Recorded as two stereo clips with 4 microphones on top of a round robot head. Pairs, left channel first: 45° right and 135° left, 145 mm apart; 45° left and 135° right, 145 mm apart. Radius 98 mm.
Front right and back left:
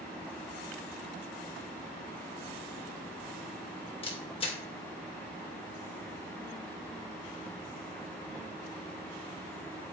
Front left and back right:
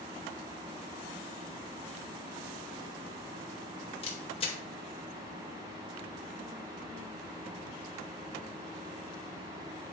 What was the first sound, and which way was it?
A camera shutter, straight ahead.